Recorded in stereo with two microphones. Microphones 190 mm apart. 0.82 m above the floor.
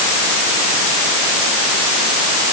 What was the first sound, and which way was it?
Only background noise.